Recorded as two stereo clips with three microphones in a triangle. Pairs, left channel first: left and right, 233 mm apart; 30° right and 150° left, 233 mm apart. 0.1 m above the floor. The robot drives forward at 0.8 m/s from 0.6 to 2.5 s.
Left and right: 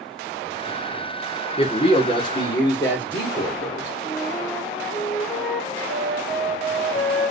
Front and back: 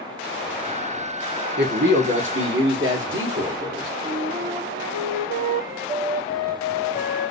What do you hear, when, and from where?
1.6 s a man speaking: 145° left, 1.7 m; by 3.9 s 160° left, 2.5 m
4.0 s a flute: straight behind, 2.5 m